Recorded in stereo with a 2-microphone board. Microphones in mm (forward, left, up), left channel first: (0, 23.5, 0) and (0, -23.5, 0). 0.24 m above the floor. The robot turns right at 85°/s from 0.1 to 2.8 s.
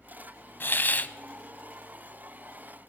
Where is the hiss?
90° left, 0.6 m; by 1.1 s 130° left, 0.6 m.